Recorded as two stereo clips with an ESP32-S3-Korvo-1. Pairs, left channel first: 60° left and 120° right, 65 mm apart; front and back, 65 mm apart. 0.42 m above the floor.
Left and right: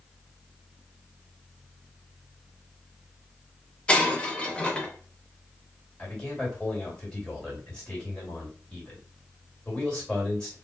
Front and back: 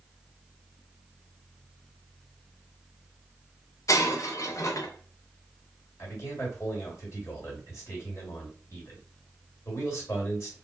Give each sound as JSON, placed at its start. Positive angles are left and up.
{"t": 3.9, "sound": "breaking glass", "azimuth_deg": -10, "distance_m": 0.5}
{"t": 6.0, "sound": "a man speaking", "azimuth_deg": -10, "distance_m": 1.6}